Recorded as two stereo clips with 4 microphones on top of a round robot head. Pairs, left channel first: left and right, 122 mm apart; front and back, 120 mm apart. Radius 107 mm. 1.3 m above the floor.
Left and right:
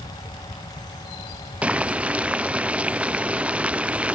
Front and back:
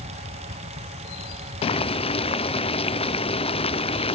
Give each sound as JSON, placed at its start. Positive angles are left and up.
{"t": 1.6, "sound": "boiling", "azimuth_deg": -10, "distance_m": 0.5}